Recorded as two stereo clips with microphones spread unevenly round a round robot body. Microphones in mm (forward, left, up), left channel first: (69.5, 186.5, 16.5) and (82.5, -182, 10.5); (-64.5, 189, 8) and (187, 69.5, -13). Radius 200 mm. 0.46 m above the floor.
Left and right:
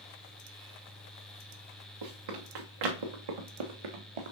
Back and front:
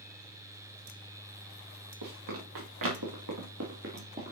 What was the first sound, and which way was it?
Running footsteps, 60° right.